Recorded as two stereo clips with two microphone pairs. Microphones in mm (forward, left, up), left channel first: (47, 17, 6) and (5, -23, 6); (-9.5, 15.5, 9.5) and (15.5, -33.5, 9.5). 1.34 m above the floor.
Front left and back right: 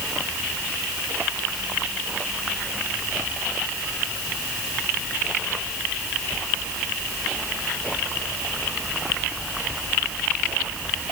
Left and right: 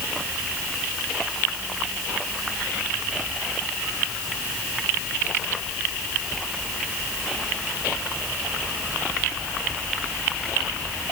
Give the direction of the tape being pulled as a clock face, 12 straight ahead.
No tape being pulled in this recording.